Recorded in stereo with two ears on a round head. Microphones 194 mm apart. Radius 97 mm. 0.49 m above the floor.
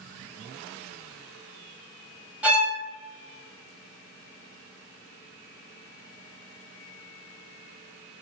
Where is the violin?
5° right (ahead or behind), 0.5 m.